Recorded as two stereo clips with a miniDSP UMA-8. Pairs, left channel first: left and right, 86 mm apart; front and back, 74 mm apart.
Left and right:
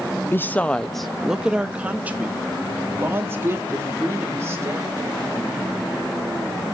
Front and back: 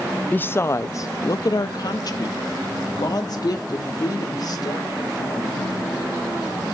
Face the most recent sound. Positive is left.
turn(degrees=-35)